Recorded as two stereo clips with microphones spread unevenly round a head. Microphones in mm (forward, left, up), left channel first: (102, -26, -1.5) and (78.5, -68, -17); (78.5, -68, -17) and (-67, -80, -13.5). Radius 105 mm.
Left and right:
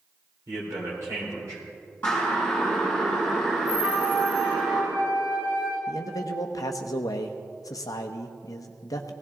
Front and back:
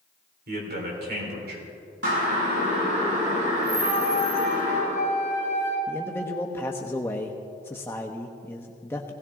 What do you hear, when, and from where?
0.5 s a man speaking: 170° right, 4 m
2.0 s a siren: 145° left, 6 m; by 4.8 s 160° left, 7 m
3.8 s a flute: 140° right, 6 m
5.9 s a man speaking: 85° left, 0.8 m